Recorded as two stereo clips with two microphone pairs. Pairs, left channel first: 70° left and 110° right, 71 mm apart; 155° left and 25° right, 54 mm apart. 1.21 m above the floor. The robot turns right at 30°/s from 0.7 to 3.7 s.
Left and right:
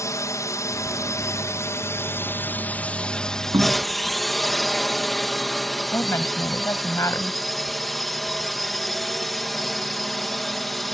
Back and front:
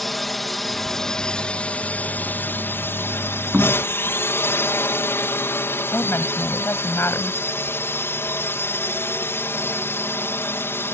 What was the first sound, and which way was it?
A drone, 70° left.